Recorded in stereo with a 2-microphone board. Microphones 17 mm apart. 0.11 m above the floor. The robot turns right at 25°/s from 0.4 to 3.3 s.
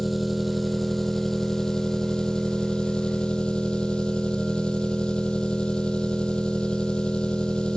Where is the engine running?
Straight ahead, 0.8 m; by 7.8 s 75° left, 0.8 m.